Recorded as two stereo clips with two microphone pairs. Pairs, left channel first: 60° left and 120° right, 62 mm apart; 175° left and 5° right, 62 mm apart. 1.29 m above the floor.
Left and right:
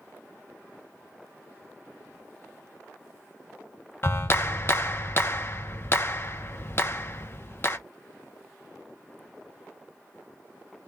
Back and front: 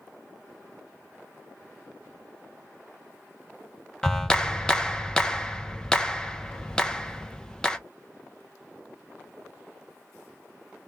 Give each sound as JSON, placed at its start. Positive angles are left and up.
{"t": 4.0, "sound": "a clap", "azimuth_deg": 100, "distance_m": 0.6}